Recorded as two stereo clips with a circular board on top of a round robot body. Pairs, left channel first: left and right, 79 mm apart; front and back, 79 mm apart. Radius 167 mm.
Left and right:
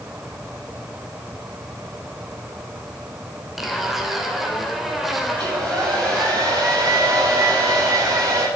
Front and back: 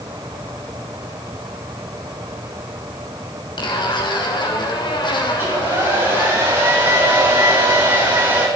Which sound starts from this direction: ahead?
A zipper, at 3.6 s.